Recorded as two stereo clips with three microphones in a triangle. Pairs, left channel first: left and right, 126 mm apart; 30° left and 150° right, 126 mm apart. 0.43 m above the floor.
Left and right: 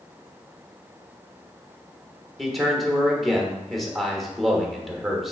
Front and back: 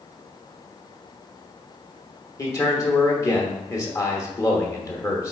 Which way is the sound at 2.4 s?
Straight ahead.